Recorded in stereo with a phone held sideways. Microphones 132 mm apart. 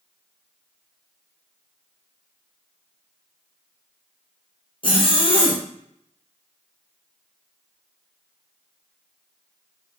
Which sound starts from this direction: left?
A zipper, at 4.8 s.